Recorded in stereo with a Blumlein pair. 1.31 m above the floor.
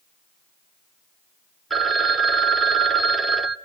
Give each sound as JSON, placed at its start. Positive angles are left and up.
{"t": 1.7, "sound": "a phone ringing", "azimuth_deg": -5, "distance_m": 0.8}